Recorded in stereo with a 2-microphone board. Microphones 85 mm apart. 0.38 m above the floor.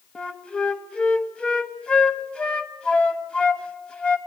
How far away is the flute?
About 1.1 m.